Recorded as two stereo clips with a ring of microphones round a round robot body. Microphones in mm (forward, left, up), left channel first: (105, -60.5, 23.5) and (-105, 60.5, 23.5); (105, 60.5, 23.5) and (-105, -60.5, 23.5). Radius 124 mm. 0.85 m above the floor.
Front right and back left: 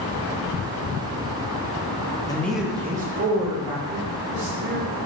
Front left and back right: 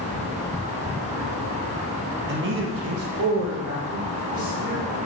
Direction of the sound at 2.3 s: 105° right.